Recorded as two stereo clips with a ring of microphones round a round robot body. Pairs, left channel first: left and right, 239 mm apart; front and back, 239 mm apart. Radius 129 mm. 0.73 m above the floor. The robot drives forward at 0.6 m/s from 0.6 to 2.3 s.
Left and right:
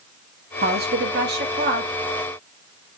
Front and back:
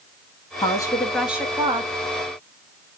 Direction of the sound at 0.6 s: 60° right.